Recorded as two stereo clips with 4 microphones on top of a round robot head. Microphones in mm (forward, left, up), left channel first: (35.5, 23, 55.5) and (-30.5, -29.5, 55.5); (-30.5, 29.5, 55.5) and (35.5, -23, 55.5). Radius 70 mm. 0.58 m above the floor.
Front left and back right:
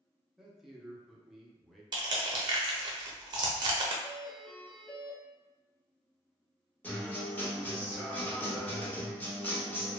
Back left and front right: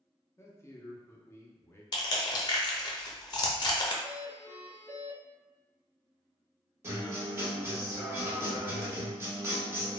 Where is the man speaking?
135° left, 0.7 m.